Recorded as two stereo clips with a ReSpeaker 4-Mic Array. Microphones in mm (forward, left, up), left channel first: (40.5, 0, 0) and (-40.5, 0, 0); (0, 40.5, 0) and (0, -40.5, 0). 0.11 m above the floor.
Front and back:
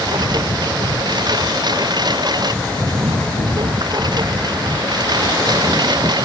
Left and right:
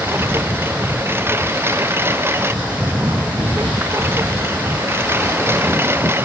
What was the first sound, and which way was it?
A lawn mower, 150° right.